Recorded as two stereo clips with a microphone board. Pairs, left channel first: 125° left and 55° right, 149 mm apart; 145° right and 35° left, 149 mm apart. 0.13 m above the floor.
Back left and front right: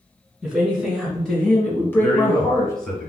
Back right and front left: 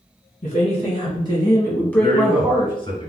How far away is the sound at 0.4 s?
About 1.7 m.